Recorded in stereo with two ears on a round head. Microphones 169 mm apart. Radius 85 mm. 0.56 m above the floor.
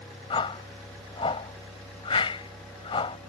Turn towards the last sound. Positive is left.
turn(degrees=30)  # may be behind; listen again after turning